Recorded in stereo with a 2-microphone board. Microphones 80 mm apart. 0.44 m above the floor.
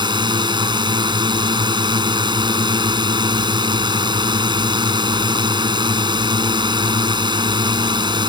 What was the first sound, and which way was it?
A drone, 75° right (ahead or behind).